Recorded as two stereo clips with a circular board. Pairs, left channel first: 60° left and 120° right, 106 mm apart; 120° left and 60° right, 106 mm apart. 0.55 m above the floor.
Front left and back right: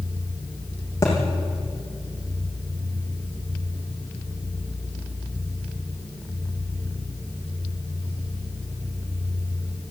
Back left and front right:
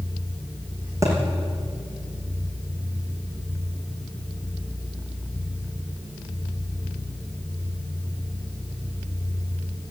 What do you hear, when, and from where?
1.0 s a thud: straight ahead, 7 m